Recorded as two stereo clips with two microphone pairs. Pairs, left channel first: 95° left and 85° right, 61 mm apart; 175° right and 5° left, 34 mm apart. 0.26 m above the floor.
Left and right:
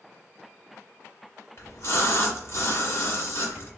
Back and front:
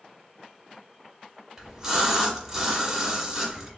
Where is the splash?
80° left, 0.9 m.